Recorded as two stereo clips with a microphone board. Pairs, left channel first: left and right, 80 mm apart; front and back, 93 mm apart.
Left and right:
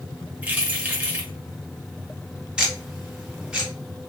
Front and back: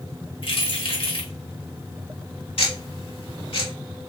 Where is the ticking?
10° right, 1.7 m.